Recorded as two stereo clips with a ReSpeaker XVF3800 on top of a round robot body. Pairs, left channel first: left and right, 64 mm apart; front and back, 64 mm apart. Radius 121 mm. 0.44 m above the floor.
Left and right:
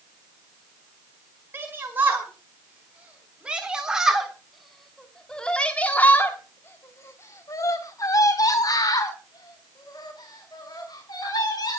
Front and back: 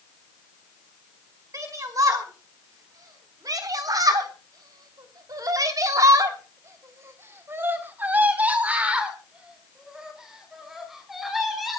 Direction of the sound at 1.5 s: 150° right.